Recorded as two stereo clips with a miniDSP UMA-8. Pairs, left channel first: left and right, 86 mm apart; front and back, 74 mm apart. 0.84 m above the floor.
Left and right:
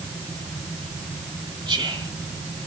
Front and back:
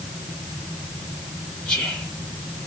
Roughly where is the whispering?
Right.